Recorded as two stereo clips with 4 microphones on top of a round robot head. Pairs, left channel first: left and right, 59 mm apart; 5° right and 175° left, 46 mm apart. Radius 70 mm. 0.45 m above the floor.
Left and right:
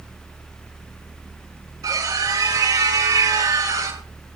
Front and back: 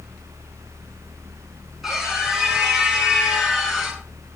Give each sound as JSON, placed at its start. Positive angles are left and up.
{"t": 1.8, "sound": "a scream", "azimuth_deg": -100, "distance_m": 10.0}